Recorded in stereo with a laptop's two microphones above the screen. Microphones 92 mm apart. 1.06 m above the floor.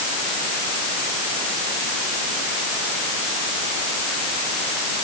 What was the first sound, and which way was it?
Only background noise.